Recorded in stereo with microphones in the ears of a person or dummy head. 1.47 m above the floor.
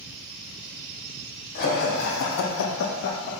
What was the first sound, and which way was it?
Laughter, 50° left (ahead or behind).